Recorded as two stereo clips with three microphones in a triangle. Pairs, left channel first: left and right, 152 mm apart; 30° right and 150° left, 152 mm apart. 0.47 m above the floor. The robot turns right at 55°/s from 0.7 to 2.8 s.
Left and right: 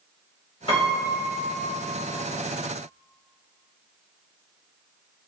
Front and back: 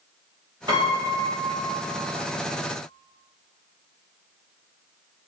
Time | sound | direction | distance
0.7 | a piano | 115° left | 1.3 m